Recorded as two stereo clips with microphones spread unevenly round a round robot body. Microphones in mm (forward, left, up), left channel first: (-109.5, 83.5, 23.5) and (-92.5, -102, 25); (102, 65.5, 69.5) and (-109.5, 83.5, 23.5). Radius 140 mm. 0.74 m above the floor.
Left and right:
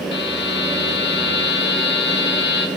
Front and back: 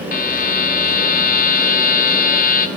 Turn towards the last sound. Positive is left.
turn(degrees=50)